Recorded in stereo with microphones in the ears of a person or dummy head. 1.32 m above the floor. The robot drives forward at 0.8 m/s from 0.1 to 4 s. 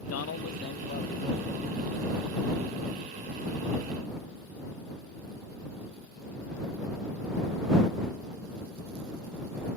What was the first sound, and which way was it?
A man speaking, 80° left.